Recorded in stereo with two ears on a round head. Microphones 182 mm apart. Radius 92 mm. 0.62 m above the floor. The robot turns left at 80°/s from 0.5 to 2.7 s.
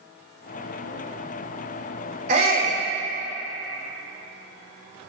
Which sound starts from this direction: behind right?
A shout, at 2.3 s.